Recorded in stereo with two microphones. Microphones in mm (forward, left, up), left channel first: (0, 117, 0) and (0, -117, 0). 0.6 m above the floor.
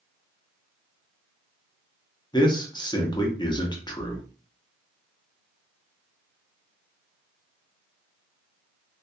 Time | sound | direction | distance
2.3 | a man speaking | 20° left (ahead or behind) | 0.7 m